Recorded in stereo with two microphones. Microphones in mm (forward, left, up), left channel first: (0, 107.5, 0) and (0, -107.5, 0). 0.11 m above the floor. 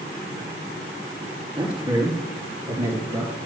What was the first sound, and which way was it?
A man speaking, 25° right (ahead or behind).